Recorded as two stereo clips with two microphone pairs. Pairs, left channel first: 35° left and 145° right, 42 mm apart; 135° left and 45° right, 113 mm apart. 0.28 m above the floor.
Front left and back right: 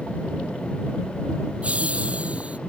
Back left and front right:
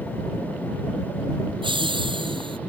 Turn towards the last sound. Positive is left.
turn(degrees=-90)